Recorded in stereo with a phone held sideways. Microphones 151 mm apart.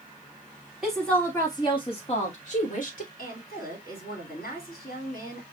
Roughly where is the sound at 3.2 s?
Left.